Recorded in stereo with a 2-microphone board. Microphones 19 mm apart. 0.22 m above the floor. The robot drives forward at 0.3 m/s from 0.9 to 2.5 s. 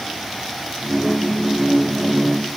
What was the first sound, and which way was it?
Only background noise.